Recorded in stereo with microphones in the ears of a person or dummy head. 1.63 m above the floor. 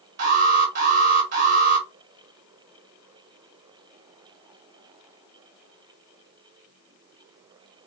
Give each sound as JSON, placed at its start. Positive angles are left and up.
{"t": 0.2, "sound": "an alarm", "side_deg": -60, "distance_m": 2.0}